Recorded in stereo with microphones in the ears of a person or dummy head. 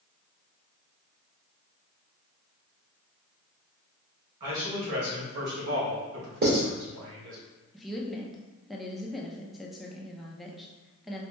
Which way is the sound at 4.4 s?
35° right (ahead or behind).